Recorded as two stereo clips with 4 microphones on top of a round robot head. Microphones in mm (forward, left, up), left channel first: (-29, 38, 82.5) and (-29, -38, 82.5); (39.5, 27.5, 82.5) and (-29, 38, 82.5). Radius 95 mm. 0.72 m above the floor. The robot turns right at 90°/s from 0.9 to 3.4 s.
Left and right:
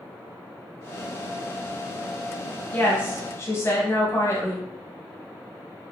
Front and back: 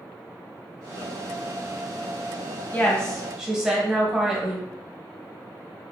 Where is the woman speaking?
35° left, 1.1 m; by 4.7 s 95° left, 1.1 m.